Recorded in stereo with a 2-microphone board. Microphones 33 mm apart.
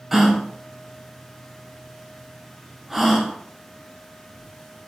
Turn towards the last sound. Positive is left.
turn(degrees=-10)  # may be behind; listen again after turning